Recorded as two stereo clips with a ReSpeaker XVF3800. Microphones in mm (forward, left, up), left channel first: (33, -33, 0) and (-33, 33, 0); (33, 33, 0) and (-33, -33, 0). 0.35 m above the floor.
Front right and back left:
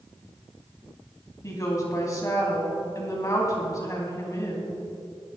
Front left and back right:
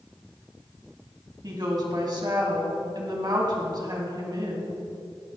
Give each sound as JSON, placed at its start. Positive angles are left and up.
{"t": 1.4, "sound": "a woman speaking", "azimuth_deg": -100, "distance_m": 3.0}